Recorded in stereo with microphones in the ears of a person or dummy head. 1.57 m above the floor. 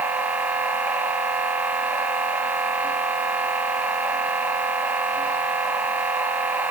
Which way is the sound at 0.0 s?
10° right (ahead or behind).